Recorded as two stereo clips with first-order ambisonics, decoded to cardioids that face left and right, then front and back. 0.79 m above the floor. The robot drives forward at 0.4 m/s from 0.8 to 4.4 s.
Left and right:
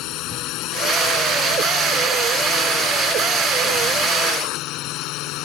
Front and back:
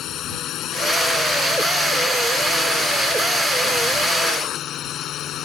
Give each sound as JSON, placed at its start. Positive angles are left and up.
{"t": 0.0, "sound": "a drone", "azimuth_deg": 55}